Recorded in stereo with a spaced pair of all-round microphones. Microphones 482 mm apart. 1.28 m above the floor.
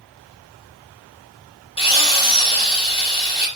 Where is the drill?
10° left (ahead or behind), 2 m.